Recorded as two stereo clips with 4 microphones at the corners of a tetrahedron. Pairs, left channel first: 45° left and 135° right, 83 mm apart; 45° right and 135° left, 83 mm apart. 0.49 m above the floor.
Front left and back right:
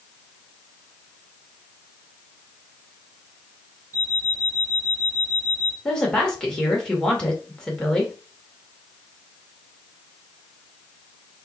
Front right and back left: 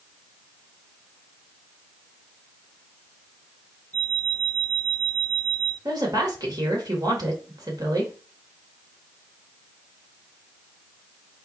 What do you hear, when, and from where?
3.9 s an alarm clock: 95° left, 3 m
5.8 s a woman speaking: 120° left, 1.8 m